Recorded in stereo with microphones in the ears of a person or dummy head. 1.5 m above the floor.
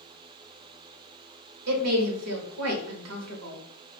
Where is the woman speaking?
80° right, 0.7 m.